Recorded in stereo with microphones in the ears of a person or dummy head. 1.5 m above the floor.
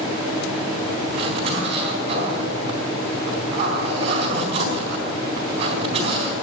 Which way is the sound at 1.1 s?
35° right (ahead or behind).